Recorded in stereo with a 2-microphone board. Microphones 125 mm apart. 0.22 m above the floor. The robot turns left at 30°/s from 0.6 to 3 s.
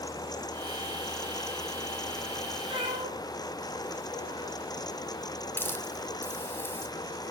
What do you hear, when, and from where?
2.7 s a cat meowing: 45° right (ahead or behind), 4.5 m; by 4.6 s 55° right (ahead or behind), 4.5 m
5.6 s a hiss: 15° left (ahead or behind), 1.7 m